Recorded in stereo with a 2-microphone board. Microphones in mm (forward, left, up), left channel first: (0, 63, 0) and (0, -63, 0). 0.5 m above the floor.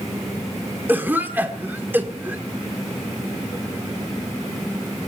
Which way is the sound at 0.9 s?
15° right (ahead or behind).